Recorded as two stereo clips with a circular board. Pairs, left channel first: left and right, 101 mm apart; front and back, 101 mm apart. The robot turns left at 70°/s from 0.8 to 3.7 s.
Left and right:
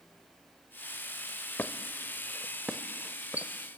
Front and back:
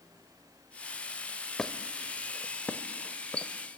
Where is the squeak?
75° left, 0.7 m; by 3.5 s 60° right, 0.7 m.